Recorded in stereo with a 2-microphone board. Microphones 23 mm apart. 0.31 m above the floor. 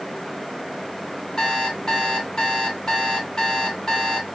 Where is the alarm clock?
30° left (ahead or behind), 1.6 m.